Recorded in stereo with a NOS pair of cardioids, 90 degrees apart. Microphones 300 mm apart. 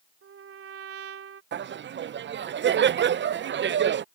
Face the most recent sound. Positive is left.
turn(degrees=-40)